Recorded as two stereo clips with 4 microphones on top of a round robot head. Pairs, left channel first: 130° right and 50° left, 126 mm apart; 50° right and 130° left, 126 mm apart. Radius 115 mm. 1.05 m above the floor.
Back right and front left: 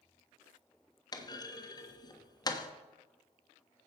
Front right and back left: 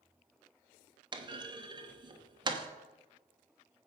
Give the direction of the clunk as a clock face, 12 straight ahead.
6 o'clock.